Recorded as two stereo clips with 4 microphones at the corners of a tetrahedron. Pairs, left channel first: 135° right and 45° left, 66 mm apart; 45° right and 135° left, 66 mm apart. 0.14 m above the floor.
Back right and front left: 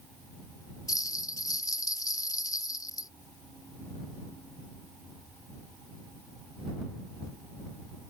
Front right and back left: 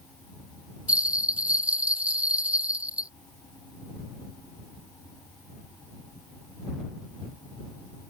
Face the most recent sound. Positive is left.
turn(degrees=-155)